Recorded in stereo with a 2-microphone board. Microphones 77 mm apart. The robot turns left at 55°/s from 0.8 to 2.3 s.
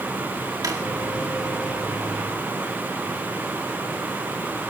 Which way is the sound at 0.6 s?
50° right (ahead or behind).